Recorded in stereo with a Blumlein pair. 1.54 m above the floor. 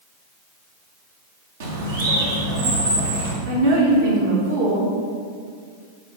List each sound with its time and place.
1.6 s a bird: 60° right, 1.5 m
3.5 s a woman speaking: 65° right, 2.5 m